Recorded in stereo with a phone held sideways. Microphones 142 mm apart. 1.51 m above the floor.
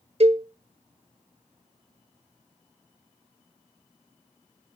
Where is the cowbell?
50° right (ahead or behind), 0.6 m.